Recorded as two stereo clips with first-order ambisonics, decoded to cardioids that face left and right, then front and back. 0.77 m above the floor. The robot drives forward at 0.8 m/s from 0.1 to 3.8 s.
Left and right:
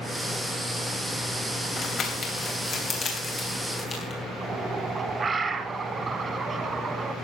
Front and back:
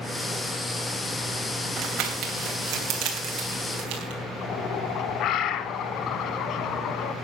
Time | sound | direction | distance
1.8 | crumpling | 140° left | 2.5 m
4.4 | a bird | 20° right | 0.8 m